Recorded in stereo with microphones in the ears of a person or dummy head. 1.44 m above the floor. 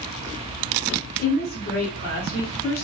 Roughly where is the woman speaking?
Left.